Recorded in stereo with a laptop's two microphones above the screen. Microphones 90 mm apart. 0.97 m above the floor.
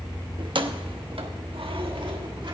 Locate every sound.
0.4 s keys jangling: 55° right (ahead or behind), 0.9 m; by 2.5 s 60° right (ahead or behind), 1.5 m